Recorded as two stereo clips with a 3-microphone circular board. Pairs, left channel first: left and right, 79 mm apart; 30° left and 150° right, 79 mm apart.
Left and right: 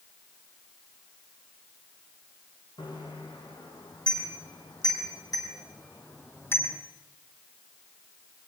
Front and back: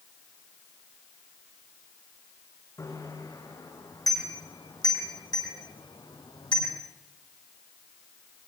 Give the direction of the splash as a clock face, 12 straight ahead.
I don't hear a splash.